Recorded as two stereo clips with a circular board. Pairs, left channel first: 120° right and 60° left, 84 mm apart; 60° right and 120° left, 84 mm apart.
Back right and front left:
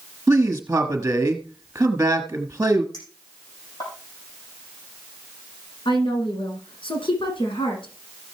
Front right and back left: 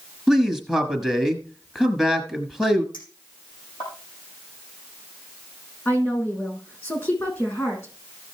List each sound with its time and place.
0.3 s a man speaking: 15° left, 1.3 m
2.9 s a clink: 85° right, 5.5 m
5.8 s a woman speaking: 120° right, 6 m